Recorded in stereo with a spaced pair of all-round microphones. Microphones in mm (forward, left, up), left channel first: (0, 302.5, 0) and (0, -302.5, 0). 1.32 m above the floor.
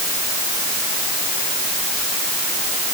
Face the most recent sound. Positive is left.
No sound to turn to.